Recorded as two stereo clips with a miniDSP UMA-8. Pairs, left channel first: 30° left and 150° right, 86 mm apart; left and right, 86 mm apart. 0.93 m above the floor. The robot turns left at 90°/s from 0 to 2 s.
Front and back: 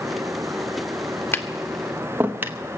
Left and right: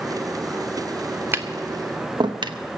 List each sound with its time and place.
1.3 s tapping: 30° right, 0.8 m; by 2.6 s 90° right, 0.8 m